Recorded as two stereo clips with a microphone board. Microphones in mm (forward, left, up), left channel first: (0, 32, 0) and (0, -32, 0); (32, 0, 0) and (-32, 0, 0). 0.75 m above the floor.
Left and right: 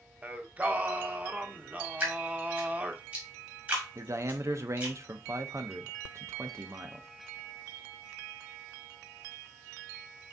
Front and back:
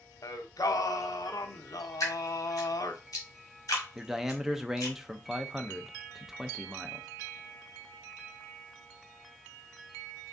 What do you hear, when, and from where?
0.2 s singing: 25° right, 0.6 m
2.0 s dripping: 25° right, 1.9 m
4.0 s a man speaking: 100° right, 0.6 m